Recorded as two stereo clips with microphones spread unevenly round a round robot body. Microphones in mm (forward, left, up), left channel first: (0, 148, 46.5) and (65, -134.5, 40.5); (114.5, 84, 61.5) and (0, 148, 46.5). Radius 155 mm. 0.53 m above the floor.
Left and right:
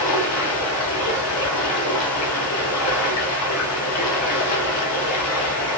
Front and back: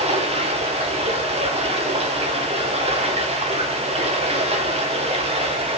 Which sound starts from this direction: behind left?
Running water, at 0.0 s.